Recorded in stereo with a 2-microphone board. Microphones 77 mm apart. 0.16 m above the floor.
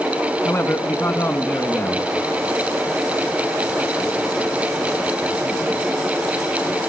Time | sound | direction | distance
0.5 | a man speaking | 30° left (ahead or behind) | 1.3 m